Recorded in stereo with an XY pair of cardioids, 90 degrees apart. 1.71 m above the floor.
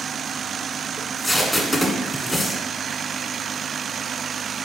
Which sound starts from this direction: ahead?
Tape being pulled, at 1.0 s.